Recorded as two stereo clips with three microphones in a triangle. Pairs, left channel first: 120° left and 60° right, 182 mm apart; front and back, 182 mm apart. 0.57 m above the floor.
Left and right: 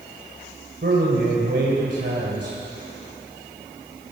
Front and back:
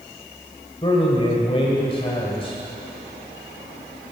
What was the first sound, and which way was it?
A man speaking, 60° right.